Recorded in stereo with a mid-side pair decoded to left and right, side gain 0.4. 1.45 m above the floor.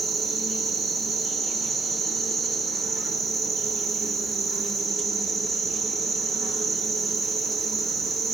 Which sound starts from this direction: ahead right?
An insect, at 0.0 s.